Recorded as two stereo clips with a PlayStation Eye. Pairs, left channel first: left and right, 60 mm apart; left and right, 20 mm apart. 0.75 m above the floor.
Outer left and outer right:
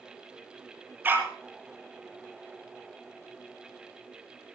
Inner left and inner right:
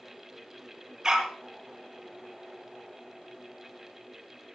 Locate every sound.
1.0 s a dog barking: 30° right (ahead or behind), 5.5 m